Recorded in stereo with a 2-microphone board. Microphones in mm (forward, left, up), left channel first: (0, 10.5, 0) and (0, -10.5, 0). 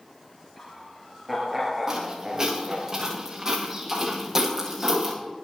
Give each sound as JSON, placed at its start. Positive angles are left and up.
{"t": 0.6, "sound": "laughter", "side_deg": 5, "distance_m": 3.5}
{"t": 1.9, "sound": "footsteps", "side_deg": -30, "distance_m": 9.5}